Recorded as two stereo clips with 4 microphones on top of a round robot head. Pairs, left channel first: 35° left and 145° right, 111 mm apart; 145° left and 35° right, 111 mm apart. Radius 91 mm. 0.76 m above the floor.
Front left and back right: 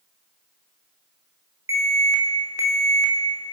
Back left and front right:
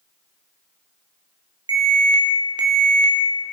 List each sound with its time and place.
1.7 s an alarm: 85° right, 3 m